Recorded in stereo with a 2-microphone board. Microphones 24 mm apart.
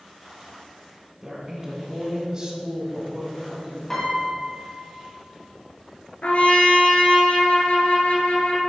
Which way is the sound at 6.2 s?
70° left (ahead or behind).